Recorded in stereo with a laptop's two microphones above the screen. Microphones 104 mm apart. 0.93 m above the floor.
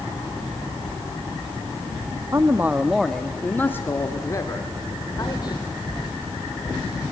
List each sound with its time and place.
2.3 s a man speaking: 30° right (ahead or behind), 1.2 m; by 5.6 s 45° left (ahead or behind), 3 m